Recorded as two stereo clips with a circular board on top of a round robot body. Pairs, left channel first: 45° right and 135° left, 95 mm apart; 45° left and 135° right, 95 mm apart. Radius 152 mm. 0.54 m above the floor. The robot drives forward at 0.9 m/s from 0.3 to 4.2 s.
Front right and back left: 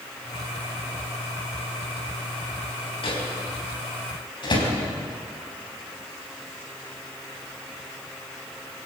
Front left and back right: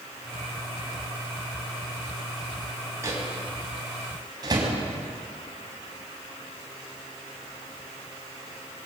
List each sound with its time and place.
3.0 s a microwave: 75° right, 4.5 m; by 4.7 s 85° right, 4.5 m